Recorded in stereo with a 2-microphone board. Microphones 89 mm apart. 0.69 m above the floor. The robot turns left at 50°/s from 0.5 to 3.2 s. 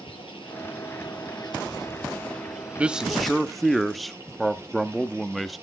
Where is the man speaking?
15° right (ahead or behind), 0.8 m; by 5.6 s centre (ahead or behind), 0.8 m.